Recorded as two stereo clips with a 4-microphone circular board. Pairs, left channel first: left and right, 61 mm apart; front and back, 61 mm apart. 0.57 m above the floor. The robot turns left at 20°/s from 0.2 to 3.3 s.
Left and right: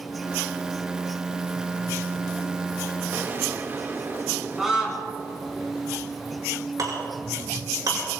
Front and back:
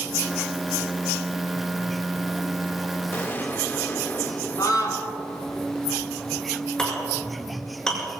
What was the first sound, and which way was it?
An explosion, 45° right.